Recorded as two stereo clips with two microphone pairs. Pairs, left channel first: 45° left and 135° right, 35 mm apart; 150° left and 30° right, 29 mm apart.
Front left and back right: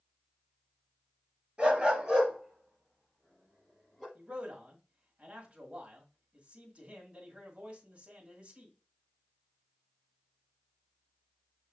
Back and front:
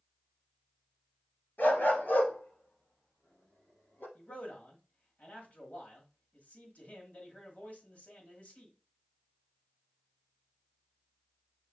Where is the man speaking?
170° left, 1.6 m.